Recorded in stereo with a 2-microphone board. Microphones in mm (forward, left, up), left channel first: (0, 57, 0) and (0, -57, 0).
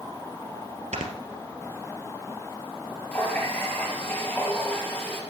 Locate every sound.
0.9 s snoring: 75° right (ahead or behind), 2 m
3.1 s a running tap: 20° left (ahead or behind), 3.5 m